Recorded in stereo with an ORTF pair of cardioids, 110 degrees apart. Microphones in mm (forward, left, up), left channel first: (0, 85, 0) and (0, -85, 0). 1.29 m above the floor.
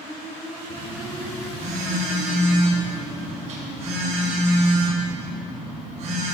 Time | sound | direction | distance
0.7 | a phone buzzing | 45° right | 5.5 m